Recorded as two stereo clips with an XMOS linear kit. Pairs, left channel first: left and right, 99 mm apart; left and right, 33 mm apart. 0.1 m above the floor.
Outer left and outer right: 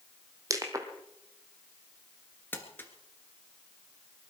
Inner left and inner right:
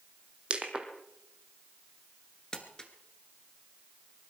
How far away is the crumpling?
About 1.9 m.